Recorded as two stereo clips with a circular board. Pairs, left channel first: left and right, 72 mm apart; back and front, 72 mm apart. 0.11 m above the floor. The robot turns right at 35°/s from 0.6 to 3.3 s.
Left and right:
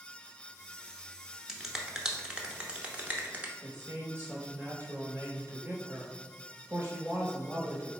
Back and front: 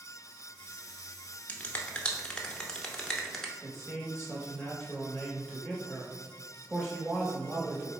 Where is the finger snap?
165° right, 0.8 m; by 3.5 s 100° right, 0.8 m.